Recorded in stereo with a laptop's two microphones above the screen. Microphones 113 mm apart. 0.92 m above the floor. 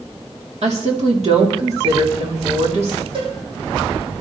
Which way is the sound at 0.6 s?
65° right (ahead or behind).